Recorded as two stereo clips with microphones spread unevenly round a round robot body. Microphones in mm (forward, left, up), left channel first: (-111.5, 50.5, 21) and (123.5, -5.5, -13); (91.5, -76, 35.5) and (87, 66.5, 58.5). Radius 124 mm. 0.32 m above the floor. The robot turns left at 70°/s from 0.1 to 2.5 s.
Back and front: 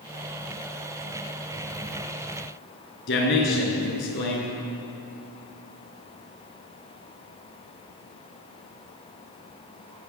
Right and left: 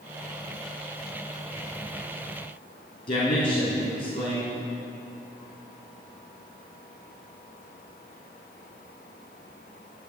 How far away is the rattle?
I don't hear a rattle.